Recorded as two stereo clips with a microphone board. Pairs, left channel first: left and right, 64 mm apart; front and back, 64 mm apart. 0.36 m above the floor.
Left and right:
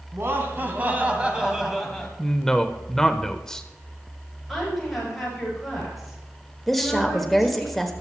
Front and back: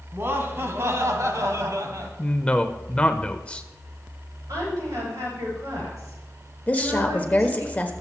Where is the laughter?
130° right, 2.5 m; by 2.1 s 170° left, 2 m.